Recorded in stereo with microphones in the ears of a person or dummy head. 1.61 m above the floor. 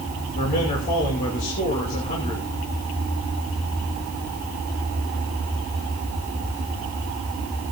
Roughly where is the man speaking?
Left.